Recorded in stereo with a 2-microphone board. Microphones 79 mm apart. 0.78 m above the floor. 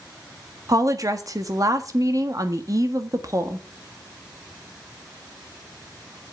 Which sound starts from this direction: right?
A woman speaking, at 0.7 s.